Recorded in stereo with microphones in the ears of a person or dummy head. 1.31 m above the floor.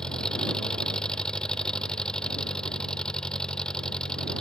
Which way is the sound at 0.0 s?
5° left (ahead or behind).